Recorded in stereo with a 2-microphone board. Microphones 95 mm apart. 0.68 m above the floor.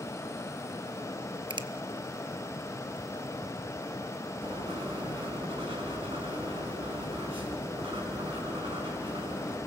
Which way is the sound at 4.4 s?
80° right.